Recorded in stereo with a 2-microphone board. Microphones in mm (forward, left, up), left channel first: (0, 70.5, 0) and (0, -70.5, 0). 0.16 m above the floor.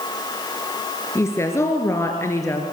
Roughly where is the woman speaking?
Centre.